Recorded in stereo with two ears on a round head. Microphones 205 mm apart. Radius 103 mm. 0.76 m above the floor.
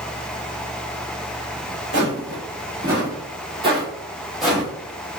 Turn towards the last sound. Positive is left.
turn(degrees=5)  # may be behind; listen again after turning